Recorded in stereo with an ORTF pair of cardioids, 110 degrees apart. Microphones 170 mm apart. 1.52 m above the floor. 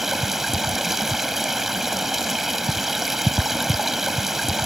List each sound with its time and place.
0.0 s running water: straight ahead